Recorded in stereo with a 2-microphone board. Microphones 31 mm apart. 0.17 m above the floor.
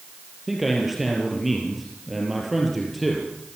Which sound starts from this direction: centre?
A man speaking, at 0.5 s.